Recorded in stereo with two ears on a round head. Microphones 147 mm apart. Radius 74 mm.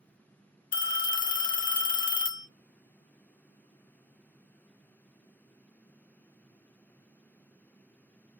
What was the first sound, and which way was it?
A phone ringing, 55° left (ahead or behind).